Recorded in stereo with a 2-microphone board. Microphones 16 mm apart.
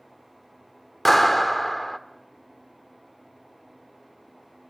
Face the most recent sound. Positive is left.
turn(degrees=5)  # may be behind; listen again after turning